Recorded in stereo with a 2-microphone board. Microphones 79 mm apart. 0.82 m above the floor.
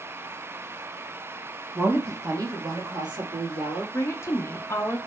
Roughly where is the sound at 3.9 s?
Left.